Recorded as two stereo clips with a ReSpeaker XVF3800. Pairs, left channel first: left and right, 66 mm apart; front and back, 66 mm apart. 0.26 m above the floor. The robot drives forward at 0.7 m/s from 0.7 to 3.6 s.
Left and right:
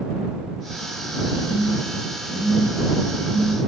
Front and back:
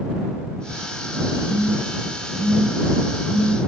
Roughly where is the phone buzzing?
Right.